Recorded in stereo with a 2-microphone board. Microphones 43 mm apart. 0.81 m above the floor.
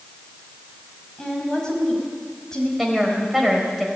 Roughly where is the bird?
No bird in this recording.